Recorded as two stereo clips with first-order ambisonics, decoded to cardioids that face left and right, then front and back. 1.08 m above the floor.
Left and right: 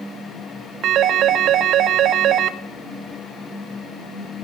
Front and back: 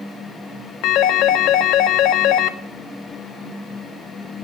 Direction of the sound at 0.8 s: 40° right.